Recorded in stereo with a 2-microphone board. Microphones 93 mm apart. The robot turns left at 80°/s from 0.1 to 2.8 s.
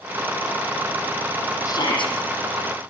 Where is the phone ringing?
I don't hear a phone ringing.